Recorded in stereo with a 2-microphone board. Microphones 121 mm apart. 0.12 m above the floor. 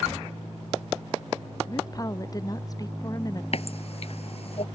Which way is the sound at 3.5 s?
55° left (ahead or behind).